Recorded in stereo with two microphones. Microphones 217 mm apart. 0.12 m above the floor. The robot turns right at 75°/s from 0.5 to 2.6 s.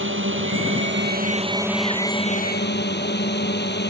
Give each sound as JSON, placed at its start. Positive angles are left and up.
{"t": 0.0, "sound": "a drone", "azimuth_deg": -100}